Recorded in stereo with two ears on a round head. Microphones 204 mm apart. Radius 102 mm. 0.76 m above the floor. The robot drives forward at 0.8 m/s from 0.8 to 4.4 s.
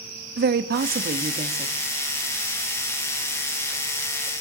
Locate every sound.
0.4 s a woman speaking: 45° right (ahead or behind), 0.8 m; by 1.8 s 25° right (ahead or behind), 1.3 m